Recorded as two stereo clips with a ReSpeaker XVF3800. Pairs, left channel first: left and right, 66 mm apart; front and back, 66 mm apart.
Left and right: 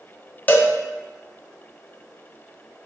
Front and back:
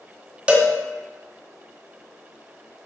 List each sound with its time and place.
0.5 s a cowbell: 125° left, 0.6 m